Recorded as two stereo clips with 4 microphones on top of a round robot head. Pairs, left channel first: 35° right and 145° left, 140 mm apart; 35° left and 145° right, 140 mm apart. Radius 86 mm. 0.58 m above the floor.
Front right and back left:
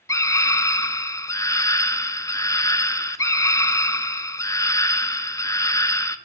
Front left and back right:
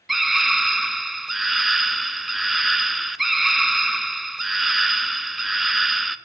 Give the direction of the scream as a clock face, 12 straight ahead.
2 o'clock.